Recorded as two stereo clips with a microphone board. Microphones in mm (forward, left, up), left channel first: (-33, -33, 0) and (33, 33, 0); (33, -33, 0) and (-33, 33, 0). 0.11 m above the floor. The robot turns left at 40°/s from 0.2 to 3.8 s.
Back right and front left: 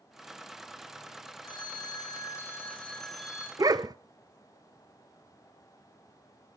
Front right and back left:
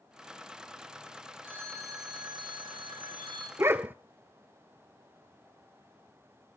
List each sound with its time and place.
1.4 s a phone ringing: 155° right, 3.5 m; by 3.5 s 120° left, 3.5 m
3.6 s a dog barking: 80° left, 0.5 m; by 4.0 s 70° left, 0.5 m